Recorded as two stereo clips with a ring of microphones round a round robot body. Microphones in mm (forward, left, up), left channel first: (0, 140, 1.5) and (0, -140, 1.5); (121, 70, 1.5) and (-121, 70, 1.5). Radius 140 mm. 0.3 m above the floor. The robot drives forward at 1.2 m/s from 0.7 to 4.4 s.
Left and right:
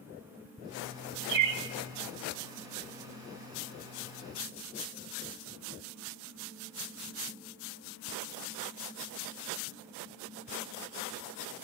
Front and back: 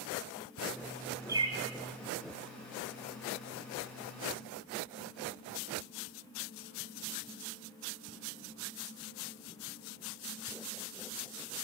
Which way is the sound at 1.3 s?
100° right.